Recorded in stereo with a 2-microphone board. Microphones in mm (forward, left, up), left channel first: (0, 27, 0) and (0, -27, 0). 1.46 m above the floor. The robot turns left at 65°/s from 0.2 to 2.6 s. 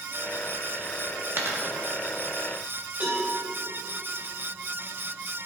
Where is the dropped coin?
45° right (ahead or behind), 1.0 m; by 1.6 s 40° right (ahead or behind), 1.0 m.